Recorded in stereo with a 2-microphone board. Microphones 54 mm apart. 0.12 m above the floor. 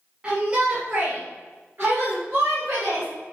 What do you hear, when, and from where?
0.2 s a shout: 25° right (ahead or behind), 3 m; by 3.1 s 60° right (ahead or behind), 3.5 m